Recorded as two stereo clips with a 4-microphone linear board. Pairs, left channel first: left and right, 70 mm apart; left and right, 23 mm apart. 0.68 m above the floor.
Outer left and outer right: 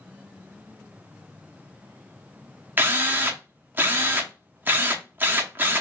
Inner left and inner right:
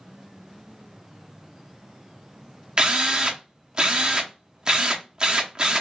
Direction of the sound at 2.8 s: 30° right (ahead or behind).